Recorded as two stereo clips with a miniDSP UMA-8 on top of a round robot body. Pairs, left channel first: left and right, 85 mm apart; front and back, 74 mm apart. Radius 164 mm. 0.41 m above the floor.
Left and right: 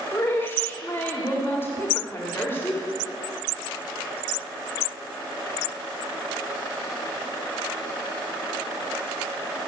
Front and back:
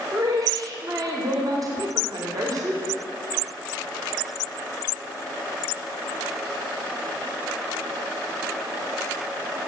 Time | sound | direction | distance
0.1 | a woman speaking | 150° left | 2 m